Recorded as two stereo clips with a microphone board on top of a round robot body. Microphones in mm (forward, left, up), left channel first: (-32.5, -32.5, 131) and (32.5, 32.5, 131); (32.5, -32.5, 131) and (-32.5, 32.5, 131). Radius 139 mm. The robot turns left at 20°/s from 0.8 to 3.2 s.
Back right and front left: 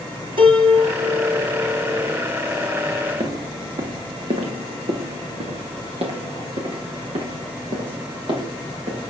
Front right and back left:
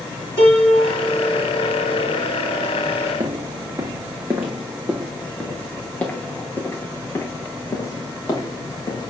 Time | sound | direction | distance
0.4 | a piano | 75° left | 7.5 m
3.2 | footsteps | 90° left | 2 m